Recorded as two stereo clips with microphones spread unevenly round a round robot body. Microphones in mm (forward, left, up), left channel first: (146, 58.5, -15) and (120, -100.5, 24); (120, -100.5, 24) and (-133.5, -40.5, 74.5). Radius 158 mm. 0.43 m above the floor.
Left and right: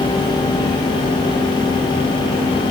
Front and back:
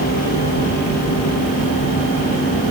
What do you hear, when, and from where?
Only background noise.